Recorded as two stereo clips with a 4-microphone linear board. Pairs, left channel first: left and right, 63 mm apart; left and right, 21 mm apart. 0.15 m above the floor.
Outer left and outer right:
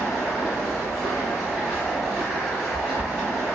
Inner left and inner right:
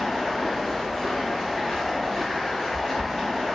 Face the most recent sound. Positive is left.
turn(degrees=55)  # may be behind; listen again after turning